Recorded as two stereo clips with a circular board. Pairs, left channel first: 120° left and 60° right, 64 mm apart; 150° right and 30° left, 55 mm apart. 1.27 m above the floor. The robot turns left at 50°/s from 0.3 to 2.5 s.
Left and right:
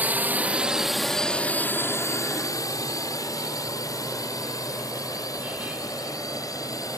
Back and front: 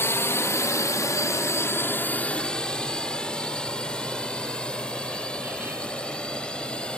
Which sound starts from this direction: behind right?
A drone, at 0.0 s.